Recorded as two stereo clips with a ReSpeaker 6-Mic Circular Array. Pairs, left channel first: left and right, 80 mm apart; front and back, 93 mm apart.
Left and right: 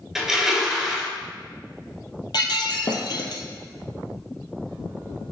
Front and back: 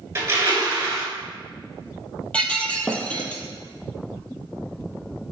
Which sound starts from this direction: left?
Breaking glass, at 2.3 s.